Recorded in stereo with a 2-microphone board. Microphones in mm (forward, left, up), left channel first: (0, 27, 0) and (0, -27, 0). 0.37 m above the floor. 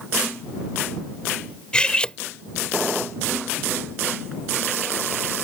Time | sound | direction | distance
1.7 | cutlery clinking | 20° left (ahead or behind) | ?